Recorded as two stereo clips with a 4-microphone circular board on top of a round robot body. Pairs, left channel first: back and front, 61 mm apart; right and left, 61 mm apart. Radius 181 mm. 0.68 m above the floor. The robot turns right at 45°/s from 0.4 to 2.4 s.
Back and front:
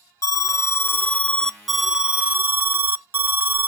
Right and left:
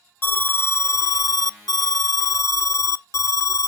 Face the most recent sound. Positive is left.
turn(degrees=-55)